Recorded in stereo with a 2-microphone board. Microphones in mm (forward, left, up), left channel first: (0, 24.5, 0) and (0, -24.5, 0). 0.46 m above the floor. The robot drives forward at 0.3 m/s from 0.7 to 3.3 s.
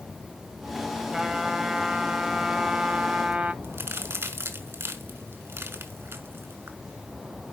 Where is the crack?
55° right (ahead or behind), 1.9 m.